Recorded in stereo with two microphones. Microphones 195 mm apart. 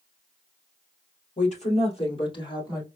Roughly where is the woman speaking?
Left.